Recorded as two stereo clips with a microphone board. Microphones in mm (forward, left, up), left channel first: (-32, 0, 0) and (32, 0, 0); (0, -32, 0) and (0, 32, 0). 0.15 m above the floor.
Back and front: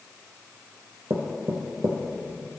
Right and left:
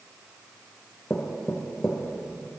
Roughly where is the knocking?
Ahead.